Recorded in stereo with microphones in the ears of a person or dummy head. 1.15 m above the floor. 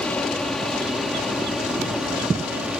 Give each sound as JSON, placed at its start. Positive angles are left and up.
{"t": 0.0, "sound": "an aircraft", "side_deg": 5}